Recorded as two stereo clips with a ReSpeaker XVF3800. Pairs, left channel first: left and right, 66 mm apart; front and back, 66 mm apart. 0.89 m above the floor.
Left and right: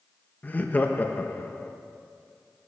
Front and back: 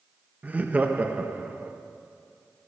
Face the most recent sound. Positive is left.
turn(degrees=130)